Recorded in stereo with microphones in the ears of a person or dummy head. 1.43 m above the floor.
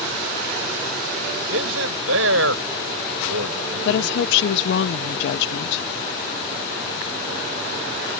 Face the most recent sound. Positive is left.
turn(degrees=70)  # may be behind; listen again after turning